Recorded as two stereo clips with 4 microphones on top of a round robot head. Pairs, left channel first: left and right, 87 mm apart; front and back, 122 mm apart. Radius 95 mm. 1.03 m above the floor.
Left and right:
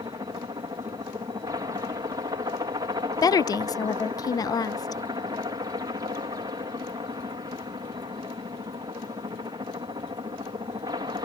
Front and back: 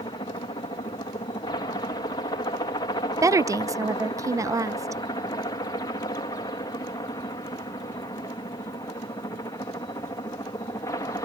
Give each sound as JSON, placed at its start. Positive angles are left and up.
{"t": 0.0, "sound": "a helicopter", "azimuth_deg": -50}
{"t": 3.2, "sound": "a woman speaking", "azimuth_deg": 120}